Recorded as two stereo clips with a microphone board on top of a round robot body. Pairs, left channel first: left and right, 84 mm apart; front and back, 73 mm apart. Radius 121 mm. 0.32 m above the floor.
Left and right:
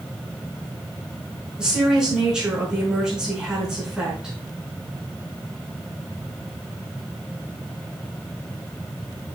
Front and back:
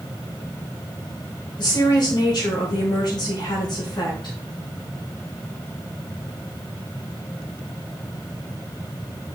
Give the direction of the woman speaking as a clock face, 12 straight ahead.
12 o'clock.